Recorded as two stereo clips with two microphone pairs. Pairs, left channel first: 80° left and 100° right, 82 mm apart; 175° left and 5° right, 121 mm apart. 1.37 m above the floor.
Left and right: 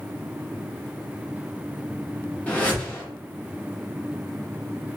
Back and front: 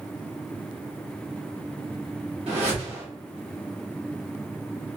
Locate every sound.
2.5 s a whoosh: 10° left, 1.0 m